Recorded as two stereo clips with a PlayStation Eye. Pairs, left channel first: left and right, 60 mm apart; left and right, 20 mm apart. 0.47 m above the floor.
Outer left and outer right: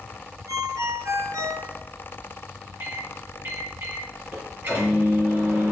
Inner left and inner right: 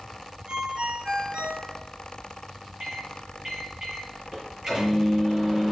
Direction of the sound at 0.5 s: 65° right (ahead or behind).